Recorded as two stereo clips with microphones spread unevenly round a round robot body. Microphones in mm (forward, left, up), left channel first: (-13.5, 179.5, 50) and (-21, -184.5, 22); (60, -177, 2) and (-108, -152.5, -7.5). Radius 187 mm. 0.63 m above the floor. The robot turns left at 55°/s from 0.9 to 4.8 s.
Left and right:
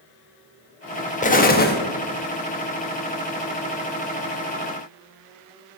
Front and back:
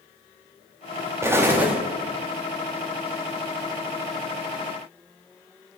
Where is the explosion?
135° left, 1.0 m; by 1.8 s 105° left, 1.0 m.